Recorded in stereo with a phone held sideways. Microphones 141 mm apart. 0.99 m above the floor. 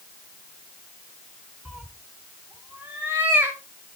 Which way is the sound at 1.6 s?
5° right (ahead or behind).